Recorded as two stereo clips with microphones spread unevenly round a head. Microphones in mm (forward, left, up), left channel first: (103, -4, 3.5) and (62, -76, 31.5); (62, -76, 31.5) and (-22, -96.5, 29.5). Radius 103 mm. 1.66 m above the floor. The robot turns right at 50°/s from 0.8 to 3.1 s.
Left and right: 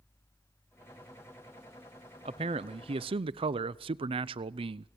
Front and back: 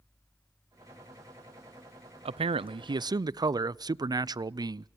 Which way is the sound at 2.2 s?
165° right.